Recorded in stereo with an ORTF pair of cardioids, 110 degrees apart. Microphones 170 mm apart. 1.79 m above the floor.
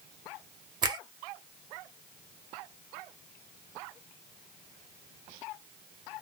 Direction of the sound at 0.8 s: 25° right.